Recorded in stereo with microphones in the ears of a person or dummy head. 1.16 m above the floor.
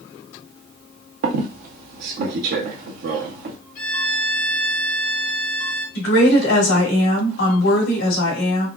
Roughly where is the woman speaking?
Left.